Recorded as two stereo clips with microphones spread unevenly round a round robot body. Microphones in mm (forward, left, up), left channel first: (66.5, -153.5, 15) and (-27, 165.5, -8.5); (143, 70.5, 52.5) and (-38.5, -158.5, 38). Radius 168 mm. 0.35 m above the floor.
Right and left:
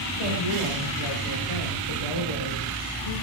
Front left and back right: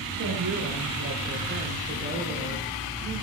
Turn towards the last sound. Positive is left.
turn(degrees=-65)